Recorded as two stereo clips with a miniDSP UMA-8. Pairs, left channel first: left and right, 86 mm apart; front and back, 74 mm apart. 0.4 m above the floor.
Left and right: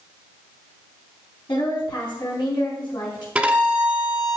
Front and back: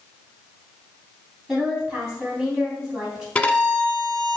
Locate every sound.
1.5 s a woman speaking: 100° left, 3.5 m
3.4 s a violin: 40° right, 1.3 m